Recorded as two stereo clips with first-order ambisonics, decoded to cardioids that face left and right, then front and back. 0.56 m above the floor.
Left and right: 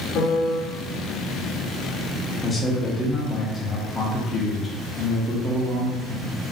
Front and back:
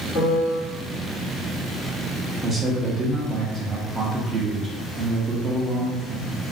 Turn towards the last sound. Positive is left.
turn(degrees=140)